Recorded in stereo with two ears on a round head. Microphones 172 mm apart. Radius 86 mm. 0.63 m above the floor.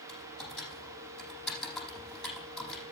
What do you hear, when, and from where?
0.1 s typing on a keyboard: centre (ahead or behind), 5 m